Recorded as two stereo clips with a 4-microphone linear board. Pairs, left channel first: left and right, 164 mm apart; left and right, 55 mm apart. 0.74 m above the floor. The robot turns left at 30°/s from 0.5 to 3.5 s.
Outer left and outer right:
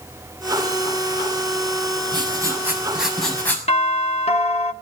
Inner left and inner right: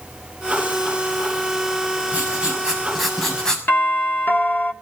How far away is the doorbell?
About 1.9 m.